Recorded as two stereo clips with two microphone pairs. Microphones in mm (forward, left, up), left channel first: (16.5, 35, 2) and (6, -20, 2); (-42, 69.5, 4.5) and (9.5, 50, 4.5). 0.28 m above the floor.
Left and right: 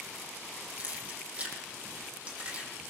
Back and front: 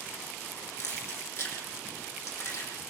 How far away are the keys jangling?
About 7.5 m.